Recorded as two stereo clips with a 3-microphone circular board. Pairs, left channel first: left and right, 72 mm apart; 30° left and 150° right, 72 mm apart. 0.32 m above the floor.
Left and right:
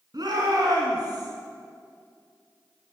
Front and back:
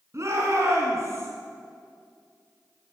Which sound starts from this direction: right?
A shout, at 0.1 s.